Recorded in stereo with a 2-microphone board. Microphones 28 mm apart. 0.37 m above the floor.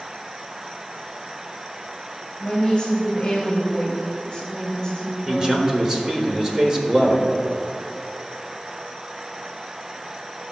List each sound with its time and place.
2.4 s a woman speaking: 20° left (ahead or behind), 2.0 m
5.3 s a man speaking: 20° right (ahead or behind), 1.0 m